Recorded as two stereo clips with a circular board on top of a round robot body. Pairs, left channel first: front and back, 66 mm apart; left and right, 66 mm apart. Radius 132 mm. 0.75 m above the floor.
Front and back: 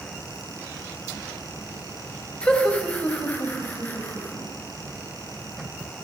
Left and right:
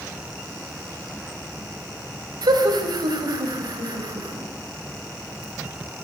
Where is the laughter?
75° right, 4 m; by 4.5 s 60° right, 6 m.